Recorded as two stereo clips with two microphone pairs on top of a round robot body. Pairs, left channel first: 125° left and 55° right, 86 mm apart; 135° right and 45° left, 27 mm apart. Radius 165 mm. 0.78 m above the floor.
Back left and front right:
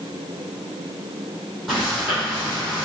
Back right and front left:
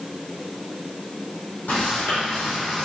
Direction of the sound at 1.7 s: 140° right.